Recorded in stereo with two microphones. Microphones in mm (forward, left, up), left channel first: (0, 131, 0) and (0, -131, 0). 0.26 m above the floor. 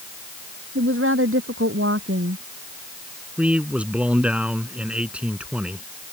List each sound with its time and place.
0.8 s a woman speaking: 50° right (ahead or behind)
3.4 s a man speaking: 5° right (ahead or behind)